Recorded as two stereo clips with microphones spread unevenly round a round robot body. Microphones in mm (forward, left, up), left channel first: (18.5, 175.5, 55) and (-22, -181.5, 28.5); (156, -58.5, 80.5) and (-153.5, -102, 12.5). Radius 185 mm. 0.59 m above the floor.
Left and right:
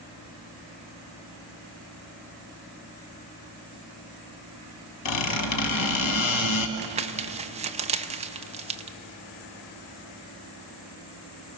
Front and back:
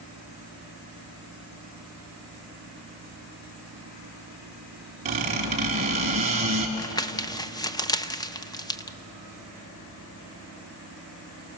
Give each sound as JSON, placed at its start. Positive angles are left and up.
{"t": 5.0, "sound": "a squeak", "azimuth_deg": 115, "distance_m": 1.7}
{"t": 6.8, "sound": "crumpling", "azimuth_deg": -80, "distance_m": 0.9}